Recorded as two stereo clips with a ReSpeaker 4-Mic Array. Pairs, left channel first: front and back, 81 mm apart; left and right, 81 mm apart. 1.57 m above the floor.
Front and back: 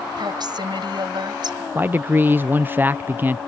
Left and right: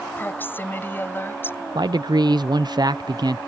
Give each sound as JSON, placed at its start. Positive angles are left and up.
{"t": 0.2, "sound": "a woman speaking", "azimuth_deg": 155}
{"t": 1.8, "sound": "a man speaking", "azimuth_deg": -115}